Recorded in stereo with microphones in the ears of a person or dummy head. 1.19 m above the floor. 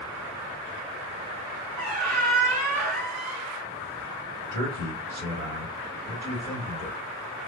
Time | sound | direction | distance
1.8 | a squeak | 45° right (ahead or behind) | 1.3 m
4.5 | a man speaking | 90° right | 1.6 m